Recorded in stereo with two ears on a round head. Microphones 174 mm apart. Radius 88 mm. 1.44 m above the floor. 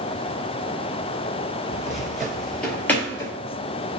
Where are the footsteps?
5° right (ahead or behind), 1.9 m; by 3.3 s 15° left (ahead or behind), 1.5 m.